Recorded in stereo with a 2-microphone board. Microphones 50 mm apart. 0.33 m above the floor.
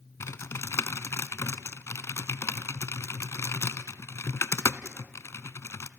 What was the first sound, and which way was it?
Typing on a keyboard, 75° left (ahead or behind).